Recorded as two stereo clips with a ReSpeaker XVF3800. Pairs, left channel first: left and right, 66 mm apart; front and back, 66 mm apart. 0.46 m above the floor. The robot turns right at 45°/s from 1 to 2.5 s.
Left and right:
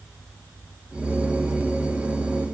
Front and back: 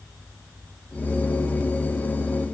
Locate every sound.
Only background noise.